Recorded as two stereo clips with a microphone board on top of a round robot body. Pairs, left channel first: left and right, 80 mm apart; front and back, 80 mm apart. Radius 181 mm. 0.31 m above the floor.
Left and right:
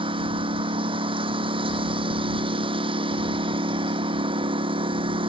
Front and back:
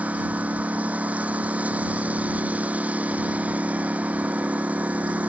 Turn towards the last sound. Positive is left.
turn(degrees=-105)